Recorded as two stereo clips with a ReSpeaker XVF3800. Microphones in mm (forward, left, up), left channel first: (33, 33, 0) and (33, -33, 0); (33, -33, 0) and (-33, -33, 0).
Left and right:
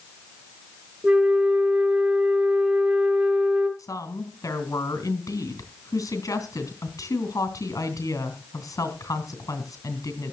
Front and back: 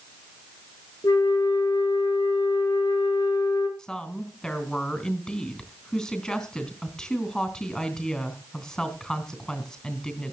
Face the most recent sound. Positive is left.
turn(degrees=75)